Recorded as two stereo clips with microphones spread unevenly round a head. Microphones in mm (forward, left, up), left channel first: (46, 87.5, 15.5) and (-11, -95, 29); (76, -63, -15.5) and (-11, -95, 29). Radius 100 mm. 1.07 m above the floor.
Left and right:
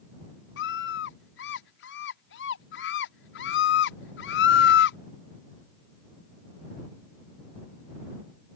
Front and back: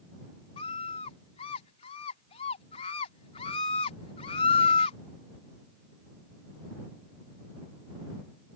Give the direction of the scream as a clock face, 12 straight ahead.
10 o'clock.